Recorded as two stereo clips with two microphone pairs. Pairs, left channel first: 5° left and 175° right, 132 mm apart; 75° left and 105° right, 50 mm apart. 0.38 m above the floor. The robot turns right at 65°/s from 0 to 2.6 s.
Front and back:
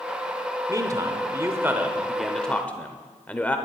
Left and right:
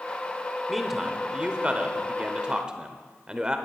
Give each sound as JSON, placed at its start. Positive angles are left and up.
{"t": 0.7, "sound": "a man speaking", "azimuth_deg": 170, "distance_m": 1.0}